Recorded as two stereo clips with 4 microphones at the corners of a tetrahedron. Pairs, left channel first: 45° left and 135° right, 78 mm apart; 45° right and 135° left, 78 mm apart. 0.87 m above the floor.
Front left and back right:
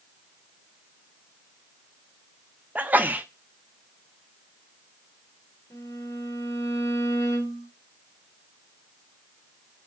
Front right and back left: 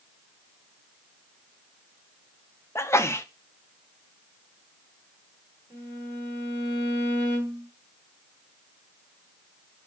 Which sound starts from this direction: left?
A violin, at 5.7 s.